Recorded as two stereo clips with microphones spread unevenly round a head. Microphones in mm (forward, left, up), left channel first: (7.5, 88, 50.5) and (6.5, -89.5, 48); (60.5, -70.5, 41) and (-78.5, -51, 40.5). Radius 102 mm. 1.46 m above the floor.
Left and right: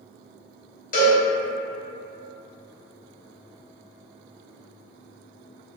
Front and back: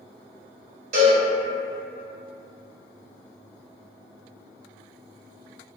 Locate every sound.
0.9 s a cowbell: 130° left, 0.8 m